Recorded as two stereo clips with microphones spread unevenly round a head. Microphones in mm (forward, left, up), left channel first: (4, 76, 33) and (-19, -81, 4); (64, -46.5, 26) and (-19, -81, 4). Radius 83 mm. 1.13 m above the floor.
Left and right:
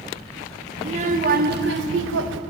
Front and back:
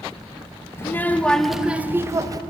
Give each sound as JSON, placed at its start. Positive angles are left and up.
{"t": 0.8, "sound": "a child speaking", "azimuth_deg": -40, "distance_m": 0.8}